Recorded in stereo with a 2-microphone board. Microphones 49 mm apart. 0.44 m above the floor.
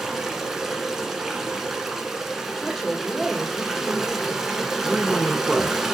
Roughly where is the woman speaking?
Centre.